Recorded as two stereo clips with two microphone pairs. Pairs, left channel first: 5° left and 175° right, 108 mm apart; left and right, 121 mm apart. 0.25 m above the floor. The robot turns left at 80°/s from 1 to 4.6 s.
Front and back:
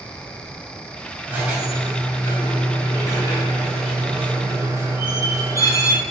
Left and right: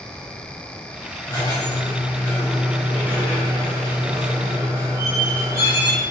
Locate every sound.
1.3 s a squeak: 125° left, 1.1 m; by 6.0 s 140° right, 1.1 m